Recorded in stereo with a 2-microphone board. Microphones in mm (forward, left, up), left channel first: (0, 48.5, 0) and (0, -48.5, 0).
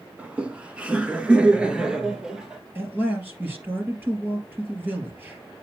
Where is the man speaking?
20° right (ahead or behind), 3.5 m.